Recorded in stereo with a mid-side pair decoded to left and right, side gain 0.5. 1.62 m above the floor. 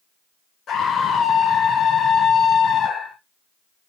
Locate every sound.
0.7 s a scream: 50° left, 0.7 m